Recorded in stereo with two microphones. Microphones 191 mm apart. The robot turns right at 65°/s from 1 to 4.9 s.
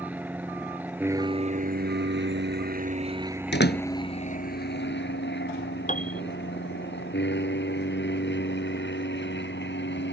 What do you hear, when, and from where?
0.0 s an aircraft: 10° right (ahead or behind); by 10.1 s 70° left (ahead or behind)
3.5 s a door slam: 70° left (ahead or behind); by 3.8 s 55° left (ahead or behind)
5.9 s a piano: 40° left (ahead or behind)